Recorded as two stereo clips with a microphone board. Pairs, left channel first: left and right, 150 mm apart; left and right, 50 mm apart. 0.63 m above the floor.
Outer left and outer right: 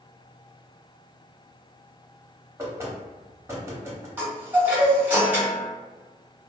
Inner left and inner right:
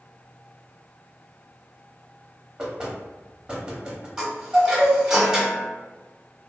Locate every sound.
2.6 s knocking: 15° right (ahead or behind), 0.8 m
4.2 s a chime: 10° right (ahead or behind), 1.0 m